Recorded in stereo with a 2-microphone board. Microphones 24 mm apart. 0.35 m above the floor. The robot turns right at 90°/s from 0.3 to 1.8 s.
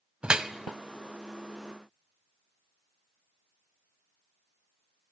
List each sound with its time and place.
0.2 s dripping: 45° right (ahead or behind), 0.7 m; by 0.5 s 30° right (ahead or behind), 0.7 m